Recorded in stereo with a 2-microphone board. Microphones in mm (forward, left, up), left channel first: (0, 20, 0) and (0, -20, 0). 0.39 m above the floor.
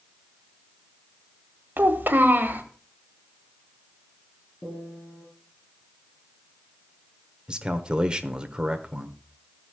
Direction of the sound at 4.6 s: 30° left (ahead or behind).